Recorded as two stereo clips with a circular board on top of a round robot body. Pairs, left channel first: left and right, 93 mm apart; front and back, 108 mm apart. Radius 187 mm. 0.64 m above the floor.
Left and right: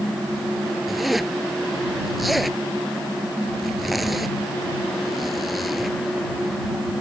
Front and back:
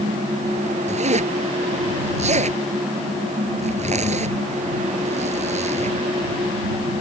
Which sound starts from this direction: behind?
A zipper, at 0.9 s.